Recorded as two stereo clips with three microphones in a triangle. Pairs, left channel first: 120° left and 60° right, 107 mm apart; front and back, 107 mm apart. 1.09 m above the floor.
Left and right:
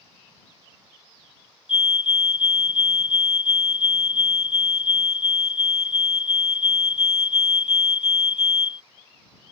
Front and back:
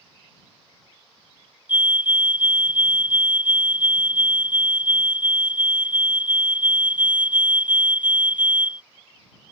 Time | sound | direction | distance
1.7 | a fire alarm | 110° left | ?